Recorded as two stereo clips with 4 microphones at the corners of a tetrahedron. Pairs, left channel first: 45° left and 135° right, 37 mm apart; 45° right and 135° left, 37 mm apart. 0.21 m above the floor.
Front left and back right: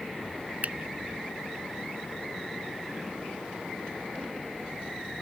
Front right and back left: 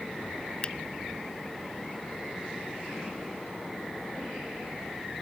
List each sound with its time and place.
0.6 s a finger snap: 100° right